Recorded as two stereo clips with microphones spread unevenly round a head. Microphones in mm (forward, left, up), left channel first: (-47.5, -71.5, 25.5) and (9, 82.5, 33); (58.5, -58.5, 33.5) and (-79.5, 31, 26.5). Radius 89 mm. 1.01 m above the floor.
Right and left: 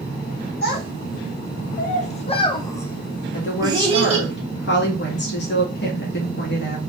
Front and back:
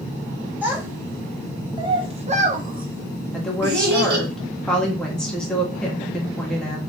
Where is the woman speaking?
120° right, 1.6 m.